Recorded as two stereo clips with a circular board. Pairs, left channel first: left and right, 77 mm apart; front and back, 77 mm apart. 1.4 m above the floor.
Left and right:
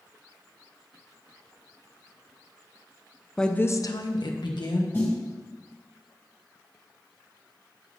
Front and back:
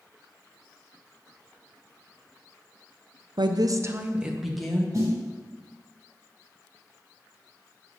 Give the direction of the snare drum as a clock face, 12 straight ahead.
7 o'clock.